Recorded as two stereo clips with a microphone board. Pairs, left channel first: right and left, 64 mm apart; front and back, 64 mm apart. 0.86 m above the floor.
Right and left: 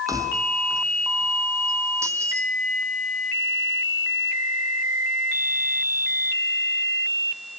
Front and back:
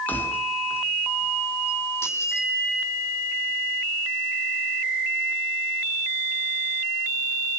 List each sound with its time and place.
0.1 s keys jangling: 60° left, 5.5 m; by 2.5 s 40° left, 6.5 m